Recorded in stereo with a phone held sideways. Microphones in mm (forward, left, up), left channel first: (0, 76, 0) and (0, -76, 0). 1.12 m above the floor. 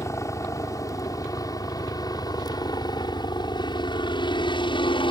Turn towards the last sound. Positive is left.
turn(degrees=30)  # may be behind; listen again after turning